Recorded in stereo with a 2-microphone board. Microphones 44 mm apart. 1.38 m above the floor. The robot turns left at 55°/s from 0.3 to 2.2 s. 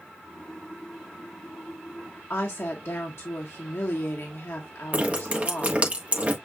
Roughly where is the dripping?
Right.